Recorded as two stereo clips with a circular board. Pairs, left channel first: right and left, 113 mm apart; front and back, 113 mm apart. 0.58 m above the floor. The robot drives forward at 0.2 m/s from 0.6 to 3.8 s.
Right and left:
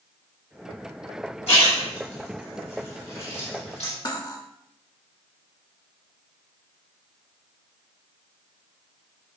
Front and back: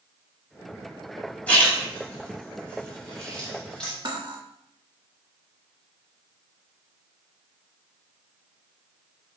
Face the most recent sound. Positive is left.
turn(degrees=-140)